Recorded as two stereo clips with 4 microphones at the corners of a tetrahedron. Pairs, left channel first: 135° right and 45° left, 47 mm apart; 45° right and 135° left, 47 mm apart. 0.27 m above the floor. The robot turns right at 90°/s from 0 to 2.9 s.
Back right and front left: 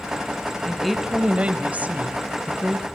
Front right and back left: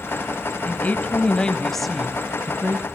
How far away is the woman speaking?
About 1.4 m.